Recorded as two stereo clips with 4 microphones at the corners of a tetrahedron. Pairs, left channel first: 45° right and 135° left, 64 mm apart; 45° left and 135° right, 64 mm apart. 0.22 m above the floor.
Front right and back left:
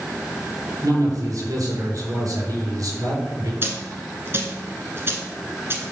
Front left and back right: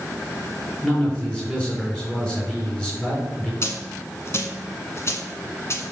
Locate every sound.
0.8 s a man speaking: 115° left, 3.5 m
3.6 s a dropped coin: 85° left, 1.4 m